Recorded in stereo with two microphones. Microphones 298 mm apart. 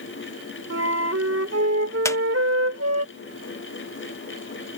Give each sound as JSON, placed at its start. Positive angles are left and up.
{"t": 0.7, "sound": "a flute", "side_deg": -50}
{"t": 2.0, "sound": "a squeak", "side_deg": 10}